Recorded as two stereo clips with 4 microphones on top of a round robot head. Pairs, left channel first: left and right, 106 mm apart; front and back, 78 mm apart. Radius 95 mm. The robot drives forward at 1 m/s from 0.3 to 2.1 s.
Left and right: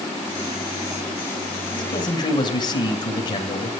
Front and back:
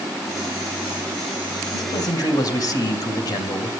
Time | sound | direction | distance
1.7 | a man speaking | 40° left | 6.5 m